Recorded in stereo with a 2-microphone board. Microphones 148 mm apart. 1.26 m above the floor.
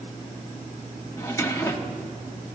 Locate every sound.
1.2 s a drawer: 20° left (ahead or behind), 1.0 m